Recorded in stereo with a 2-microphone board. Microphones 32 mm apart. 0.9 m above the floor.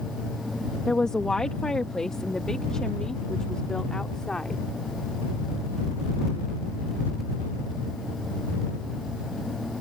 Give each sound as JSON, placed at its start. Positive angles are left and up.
{"t": 0.9, "sound": "a woman speaking", "side_deg": 20}